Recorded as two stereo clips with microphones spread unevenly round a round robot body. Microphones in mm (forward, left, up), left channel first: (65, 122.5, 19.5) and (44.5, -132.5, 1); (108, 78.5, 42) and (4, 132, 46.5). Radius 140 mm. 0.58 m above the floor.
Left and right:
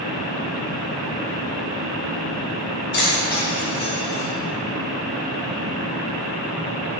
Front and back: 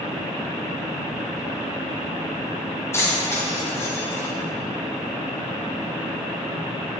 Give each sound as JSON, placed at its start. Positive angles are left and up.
{"t": 2.9, "sound": "keys jangling", "azimuth_deg": 40, "distance_m": 2.5}